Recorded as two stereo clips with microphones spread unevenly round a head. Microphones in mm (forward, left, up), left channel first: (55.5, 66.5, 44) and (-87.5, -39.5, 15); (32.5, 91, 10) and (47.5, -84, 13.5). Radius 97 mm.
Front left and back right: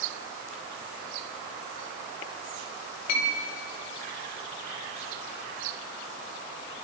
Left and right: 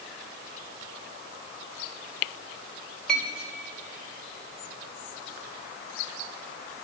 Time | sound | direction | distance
3.1 | a clink | 10° left | 5.5 m